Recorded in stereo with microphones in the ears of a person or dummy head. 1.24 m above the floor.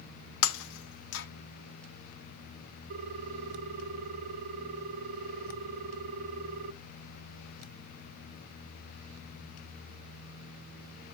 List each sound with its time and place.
0.4 s breaking glass: 70° left (ahead or behind), 0.8 m
2.9 s a ringtone: 45° right (ahead or behind), 0.8 m